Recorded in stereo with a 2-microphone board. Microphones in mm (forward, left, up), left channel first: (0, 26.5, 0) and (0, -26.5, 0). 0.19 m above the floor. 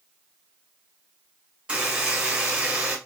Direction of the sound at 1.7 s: 15° right (ahead or behind).